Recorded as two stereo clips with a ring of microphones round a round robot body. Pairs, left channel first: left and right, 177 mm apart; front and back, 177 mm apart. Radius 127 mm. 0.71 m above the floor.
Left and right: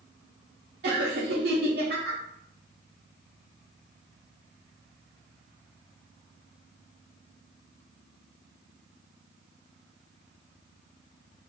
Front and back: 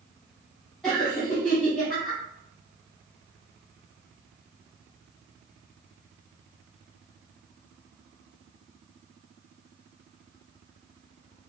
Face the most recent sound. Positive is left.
turn(degrees=-90)